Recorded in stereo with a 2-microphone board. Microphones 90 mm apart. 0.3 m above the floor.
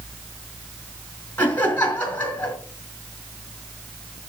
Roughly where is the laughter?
Centre.